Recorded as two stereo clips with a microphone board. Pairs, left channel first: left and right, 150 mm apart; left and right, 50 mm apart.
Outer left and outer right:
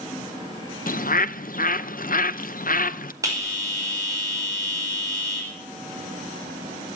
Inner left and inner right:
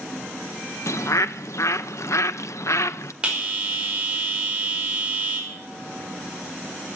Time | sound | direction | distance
0.9 | a bird | 70° left (ahead or behind) | 0.5 m
3.2 | a bell | 20° right (ahead or behind) | 5.5 m